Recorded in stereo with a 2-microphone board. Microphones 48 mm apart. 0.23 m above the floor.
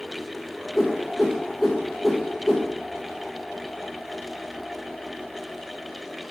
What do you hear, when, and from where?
0.7 s a whoosh: 10° right (ahead or behind), 1.1 m